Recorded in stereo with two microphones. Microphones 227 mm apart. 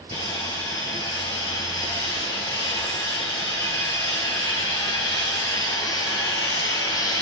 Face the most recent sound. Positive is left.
turn(degrees=15)  # may be behind; listen again after turning